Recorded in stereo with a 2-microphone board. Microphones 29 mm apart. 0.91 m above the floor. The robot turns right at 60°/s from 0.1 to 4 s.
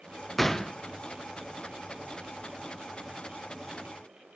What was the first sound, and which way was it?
A gunshot, 10° left (ahead or behind).